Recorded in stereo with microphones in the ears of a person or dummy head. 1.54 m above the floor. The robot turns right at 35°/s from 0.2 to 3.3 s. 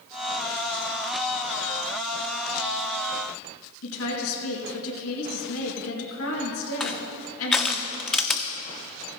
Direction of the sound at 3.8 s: 85° left.